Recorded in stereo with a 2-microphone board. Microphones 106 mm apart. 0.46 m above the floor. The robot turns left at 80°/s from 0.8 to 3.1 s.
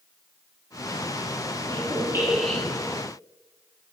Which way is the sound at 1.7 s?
120° right.